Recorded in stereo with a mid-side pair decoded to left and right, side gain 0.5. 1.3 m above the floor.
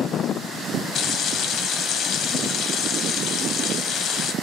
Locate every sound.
0.9 s frying: 60° left, 0.7 m